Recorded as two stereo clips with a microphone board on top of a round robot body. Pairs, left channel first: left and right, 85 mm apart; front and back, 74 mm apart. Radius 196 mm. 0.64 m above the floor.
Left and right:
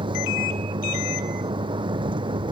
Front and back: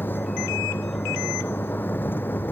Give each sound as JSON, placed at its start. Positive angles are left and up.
{"t": 0.0, "sound": "a vehicle", "azimuth_deg": -65}